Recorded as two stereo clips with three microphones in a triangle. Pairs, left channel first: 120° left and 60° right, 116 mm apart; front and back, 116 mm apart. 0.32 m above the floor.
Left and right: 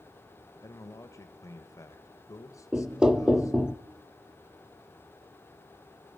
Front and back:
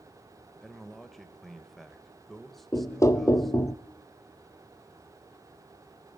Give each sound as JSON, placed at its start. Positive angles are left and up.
{"t": 0.6, "sound": "a man speaking", "azimuth_deg": 85, "distance_m": 1.1}
{"t": 2.7, "sound": "knocking", "azimuth_deg": 15, "distance_m": 0.6}